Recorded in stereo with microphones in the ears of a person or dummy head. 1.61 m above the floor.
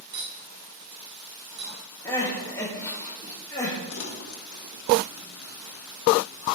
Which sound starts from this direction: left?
Crumpling, at 3.9 s.